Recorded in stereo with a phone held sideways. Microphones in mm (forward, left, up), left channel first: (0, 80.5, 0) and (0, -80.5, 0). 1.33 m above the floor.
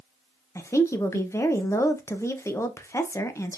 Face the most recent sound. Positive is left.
turn(degrees=15)  # may be behind; listen again after turning